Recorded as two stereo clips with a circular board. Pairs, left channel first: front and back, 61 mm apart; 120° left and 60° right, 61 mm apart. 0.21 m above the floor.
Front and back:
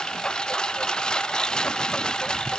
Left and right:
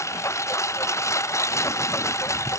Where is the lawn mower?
80° left.